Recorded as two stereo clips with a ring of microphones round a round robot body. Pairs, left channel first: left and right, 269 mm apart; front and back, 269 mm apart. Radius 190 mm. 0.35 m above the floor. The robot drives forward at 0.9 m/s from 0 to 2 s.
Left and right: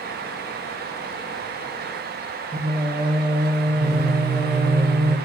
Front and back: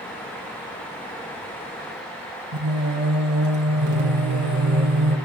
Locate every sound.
2.5 s singing: 160° right, 2 m